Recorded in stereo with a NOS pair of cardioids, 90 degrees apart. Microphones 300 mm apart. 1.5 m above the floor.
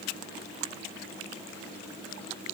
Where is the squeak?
I don't hear a squeak.